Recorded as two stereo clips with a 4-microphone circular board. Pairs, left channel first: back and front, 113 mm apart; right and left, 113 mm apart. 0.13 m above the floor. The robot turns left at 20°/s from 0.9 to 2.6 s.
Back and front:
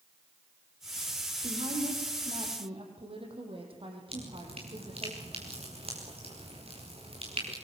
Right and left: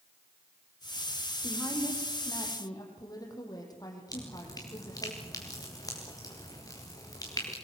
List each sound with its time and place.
1.4 s a woman speaking: 10° right, 6 m; by 5.1 s 35° right, 6 m
4.1 s dripping: 30° right, 6.5 m